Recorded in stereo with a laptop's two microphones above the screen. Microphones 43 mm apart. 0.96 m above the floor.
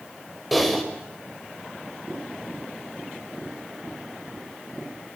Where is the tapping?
10° left (ahead or behind), 9 m.